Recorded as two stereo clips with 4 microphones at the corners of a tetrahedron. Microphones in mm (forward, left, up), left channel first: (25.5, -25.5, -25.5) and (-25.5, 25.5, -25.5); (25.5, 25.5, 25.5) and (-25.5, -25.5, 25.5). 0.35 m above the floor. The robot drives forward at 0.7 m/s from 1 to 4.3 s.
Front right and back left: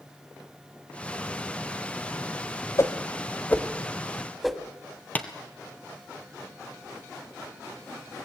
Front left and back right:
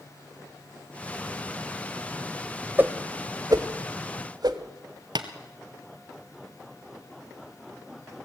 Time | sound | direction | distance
2.8 | a whoosh | 75° right | 1.1 m
5.2 | tapping | 115° right | 1.3 m